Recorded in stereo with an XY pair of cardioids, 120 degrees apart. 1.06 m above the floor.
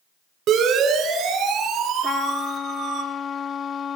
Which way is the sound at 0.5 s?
70° right.